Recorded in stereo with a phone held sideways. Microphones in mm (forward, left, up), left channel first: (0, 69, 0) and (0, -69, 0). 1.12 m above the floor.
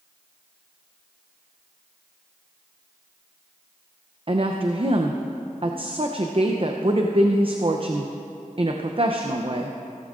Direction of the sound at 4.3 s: 40° right (ahead or behind).